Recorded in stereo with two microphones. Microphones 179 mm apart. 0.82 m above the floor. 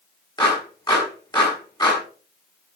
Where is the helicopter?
I don't hear a helicopter.